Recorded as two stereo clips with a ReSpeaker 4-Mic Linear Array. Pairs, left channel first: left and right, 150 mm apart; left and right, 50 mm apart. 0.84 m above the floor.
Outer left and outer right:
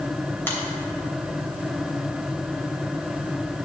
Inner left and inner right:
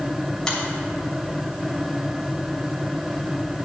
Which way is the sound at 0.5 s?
15° left (ahead or behind).